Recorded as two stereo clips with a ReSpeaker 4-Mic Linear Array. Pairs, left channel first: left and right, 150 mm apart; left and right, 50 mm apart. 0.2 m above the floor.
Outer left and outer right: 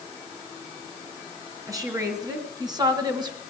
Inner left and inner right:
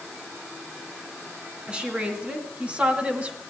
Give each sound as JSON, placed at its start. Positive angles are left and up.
{"t": 1.7, "sound": "a woman speaking", "side_deg": -20, "distance_m": 3.0}